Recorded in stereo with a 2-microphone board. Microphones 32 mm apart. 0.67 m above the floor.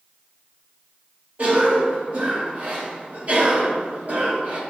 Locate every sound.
1.4 s a cough: 45° right (ahead or behind), 1.6 m